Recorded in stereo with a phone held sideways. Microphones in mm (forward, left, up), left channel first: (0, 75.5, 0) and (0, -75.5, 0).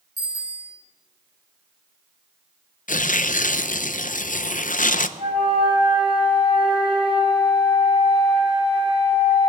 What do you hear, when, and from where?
0.2 s a bicycle bell: 65° right (ahead or behind), 5.5 m
2.9 s tearing paper: 60° left (ahead or behind), 0.5 m
5.2 s a flute: 40° right (ahead or behind), 4 m